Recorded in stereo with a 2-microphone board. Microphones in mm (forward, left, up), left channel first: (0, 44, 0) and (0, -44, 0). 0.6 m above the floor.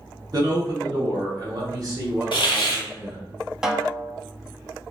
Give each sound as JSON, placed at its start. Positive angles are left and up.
{"t": 0.3, "sound": "a man speaking", "side_deg": -45, "distance_m": 1.0}
{"t": 2.3, "sound": "a hiss", "side_deg": 70, "distance_m": 0.7}
{"t": 3.6, "sound": "a snare drum", "side_deg": -5, "distance_m": 0.5}